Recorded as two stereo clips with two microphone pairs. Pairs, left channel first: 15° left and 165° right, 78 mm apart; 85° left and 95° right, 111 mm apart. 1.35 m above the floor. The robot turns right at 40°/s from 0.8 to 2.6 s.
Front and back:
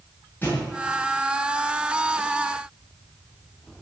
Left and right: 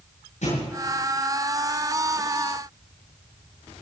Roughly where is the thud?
Left.